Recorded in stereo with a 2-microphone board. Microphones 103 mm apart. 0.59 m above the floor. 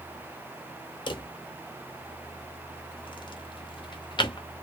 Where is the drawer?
50° left (ahead or behind), 0.6 m.